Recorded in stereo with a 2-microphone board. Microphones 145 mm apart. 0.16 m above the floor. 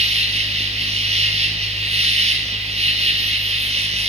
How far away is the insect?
About 0.9 m.